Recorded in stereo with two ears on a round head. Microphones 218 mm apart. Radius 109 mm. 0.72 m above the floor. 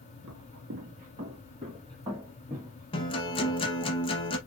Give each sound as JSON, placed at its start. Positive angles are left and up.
{"t": 0.2, "sound": "footsteps", "side_deg": -50, "distance_m": 1.1}
{"t": 2.9, "sound": "a guitar", "side_deg": 20, "distance_m": 0.7}